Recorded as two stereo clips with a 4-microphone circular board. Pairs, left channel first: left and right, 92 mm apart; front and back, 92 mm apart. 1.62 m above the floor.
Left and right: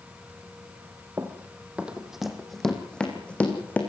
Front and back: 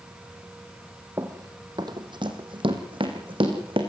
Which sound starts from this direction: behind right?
Running footsteps, at 1.2 s.